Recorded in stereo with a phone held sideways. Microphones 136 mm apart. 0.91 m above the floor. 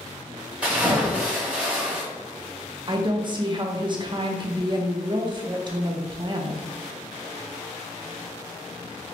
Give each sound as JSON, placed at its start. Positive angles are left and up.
{"t": 0.6, "sound": "a splash", "side_deg": -10, "distance_m": 1.1}
{"t": 2.9, "sound": "a woman speaking", "side_deg": -35, "distance_m": 0.5}